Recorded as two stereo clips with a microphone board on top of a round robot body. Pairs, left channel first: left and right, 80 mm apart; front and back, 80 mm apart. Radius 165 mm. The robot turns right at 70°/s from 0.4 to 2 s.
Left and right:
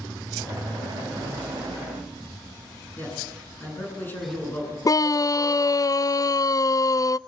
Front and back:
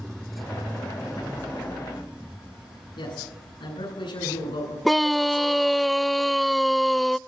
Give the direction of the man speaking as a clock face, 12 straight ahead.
11 o'clock.